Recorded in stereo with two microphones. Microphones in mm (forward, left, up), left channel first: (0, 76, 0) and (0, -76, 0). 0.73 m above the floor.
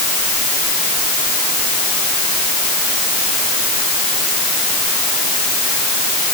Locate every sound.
Only background noise.